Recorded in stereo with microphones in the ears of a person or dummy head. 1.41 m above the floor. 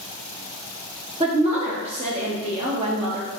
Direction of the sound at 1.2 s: 35° right (ahead or behind).